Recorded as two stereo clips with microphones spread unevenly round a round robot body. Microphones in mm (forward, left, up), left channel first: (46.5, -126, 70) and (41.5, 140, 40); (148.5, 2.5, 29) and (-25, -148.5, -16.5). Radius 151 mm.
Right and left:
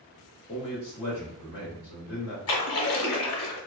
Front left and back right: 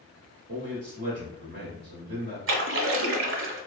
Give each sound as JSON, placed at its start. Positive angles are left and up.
{"t": 0.5, "sound": "a man speaking", "azimuth_deg": -155, "distance_m": 1.2}
{"t": 2.5, "sound": "a splash", "azimuth_deg": -115, "distance_m": 0.6}